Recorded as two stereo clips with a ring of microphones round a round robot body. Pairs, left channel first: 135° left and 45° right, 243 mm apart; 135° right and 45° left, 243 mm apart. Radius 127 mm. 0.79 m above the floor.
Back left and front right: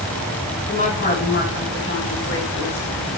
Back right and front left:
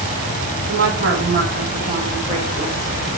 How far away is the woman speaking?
About 2.5 m.